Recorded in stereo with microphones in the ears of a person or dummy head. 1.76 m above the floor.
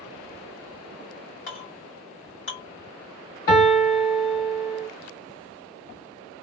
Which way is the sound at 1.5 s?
55° left (ahead or behind).